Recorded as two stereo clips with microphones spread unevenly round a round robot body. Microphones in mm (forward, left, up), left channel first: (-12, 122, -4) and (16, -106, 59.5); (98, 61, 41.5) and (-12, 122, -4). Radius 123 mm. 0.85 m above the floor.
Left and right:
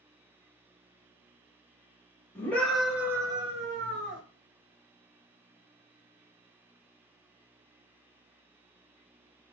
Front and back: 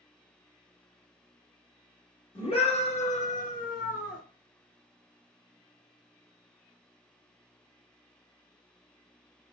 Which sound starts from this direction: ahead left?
A scream, at 2.4 s.